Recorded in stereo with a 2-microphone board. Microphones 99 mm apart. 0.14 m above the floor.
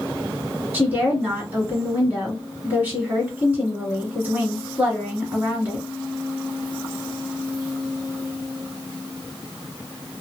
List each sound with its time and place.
0.7 s a woman speaking: 20° right (ahead or behind), 1.7 m